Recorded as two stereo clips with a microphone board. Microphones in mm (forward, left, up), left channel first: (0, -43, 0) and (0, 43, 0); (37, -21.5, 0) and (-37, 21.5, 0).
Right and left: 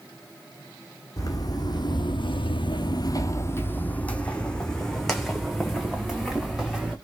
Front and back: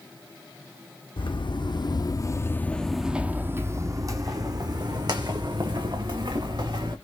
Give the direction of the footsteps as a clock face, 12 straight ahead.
2 o'clock.